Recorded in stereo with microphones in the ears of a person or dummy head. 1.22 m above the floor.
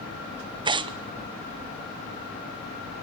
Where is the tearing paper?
20° right (ahead or behind), 0.6 m.